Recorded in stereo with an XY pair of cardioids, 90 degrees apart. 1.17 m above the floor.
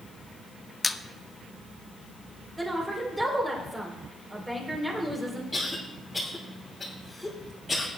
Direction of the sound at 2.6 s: 15° right.